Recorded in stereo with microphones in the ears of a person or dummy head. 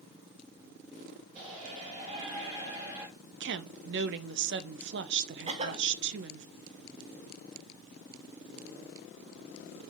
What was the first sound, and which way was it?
A shout, 45° right (ahead or behind).